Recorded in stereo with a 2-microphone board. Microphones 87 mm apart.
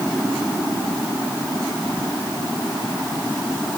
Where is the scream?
I don't hear a scream.